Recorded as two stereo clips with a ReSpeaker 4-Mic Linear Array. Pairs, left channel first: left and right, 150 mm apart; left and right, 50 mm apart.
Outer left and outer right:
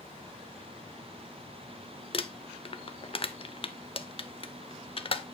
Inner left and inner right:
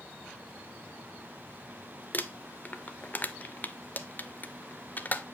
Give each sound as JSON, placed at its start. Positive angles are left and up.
{"t": 2.1, "sound": "crumpling", "side_deg": 40, "distance_m": 0.5}